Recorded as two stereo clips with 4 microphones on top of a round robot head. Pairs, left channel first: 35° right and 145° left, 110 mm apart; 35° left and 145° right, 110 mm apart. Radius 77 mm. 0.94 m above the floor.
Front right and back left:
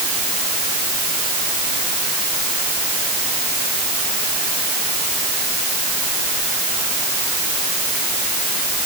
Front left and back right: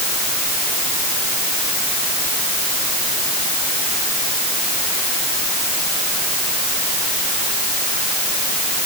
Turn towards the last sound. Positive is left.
No sound to turn to.